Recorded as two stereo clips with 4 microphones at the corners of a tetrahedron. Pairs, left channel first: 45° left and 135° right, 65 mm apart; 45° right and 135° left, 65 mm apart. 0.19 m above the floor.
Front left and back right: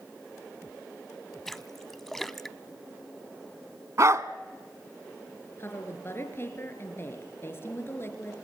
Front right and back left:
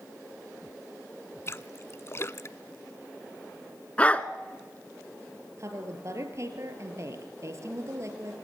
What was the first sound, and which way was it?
A splash, 40° right.